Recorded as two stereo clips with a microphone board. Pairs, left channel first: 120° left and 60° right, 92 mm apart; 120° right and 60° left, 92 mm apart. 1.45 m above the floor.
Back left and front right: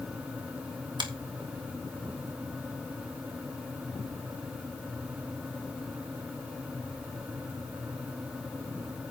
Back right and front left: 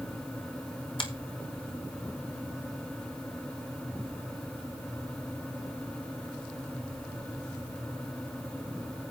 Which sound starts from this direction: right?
A finger snap, at 1.0 s.